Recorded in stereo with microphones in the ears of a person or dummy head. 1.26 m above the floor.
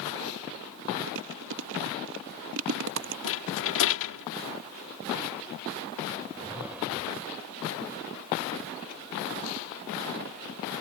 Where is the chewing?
70° right (ahead or behind).